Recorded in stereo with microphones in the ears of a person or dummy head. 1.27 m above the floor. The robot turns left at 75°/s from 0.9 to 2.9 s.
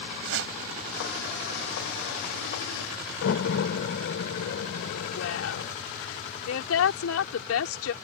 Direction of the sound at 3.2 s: 75° left (ahead or behind).